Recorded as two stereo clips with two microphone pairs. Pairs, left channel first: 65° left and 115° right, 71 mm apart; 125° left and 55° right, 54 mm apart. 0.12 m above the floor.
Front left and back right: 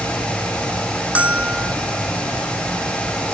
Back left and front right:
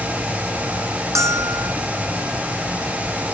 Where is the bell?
45° right.